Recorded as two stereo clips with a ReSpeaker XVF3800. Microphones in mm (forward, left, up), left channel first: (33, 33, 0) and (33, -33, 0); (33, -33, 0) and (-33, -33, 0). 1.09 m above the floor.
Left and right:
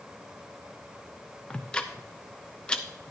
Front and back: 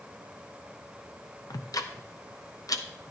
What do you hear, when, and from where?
1.5 s ticking: 15° left, 0.8 m